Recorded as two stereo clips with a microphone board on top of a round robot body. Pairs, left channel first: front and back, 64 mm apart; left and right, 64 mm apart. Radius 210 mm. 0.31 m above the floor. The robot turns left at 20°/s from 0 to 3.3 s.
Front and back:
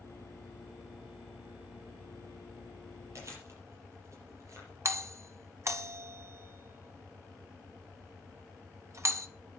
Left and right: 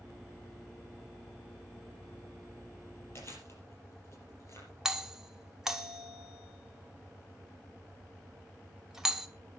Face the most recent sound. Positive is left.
turn(degrees=-170)